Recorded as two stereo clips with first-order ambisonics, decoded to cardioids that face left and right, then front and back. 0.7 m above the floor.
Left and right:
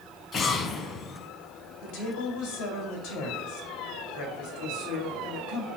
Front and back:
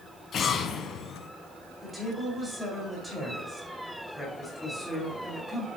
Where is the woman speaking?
90° left, 3 m.